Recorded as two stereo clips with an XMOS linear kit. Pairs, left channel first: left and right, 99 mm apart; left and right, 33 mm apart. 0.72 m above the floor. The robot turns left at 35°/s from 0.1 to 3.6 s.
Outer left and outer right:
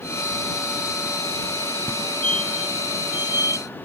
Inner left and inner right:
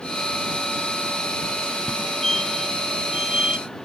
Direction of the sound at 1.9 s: 25° left (ahead or behind).